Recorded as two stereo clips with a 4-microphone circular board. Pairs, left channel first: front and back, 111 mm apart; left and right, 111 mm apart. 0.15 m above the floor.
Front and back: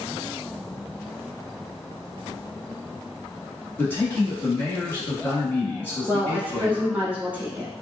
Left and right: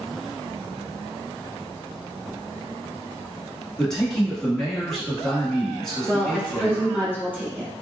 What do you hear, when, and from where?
3.8 s a man speaking: 15° left, 1.1 m
6.1 s a woman speaking: 130° right, 1.1 m